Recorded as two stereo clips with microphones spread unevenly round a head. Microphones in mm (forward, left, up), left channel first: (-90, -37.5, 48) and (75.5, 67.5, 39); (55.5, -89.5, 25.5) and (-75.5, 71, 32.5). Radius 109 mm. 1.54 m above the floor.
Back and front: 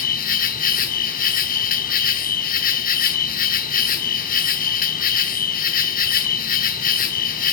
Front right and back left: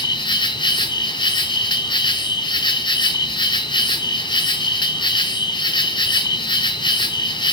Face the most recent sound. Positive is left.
turn(degrees=-115)